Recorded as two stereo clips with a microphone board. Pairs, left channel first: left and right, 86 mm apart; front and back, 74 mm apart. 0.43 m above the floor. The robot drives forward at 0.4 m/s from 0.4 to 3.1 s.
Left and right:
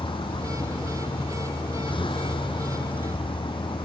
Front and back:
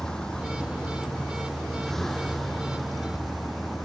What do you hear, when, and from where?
0.0 s a vehicle: 80° left; by 3.9 s 90° left